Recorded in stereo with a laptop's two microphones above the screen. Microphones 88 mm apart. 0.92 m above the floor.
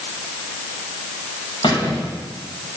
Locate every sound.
1.6 s a squeak: 80° left, 4 m